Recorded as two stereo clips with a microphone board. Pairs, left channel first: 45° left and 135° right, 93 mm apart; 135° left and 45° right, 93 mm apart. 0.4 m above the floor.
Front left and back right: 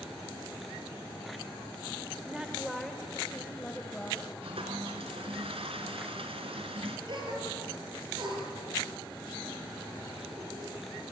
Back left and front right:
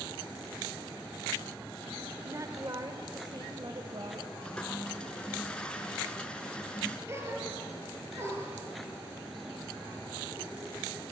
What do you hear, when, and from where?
2.2 s a woman speaking: 60° right, 1.5 m; by 4.3 s 35° right, 2.5 m
4.4 s a toilet flushing: 145° right, 2.5 m
7.1 s a gasp: 105° right, 5.5 m